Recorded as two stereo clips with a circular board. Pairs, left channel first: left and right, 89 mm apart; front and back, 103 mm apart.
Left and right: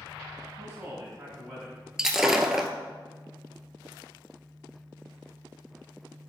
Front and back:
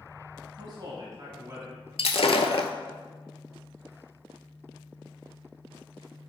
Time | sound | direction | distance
0.6 | a man speaking | 165° right | 1.9 m
2.0 | breaking glass | 5° right | 0.5 m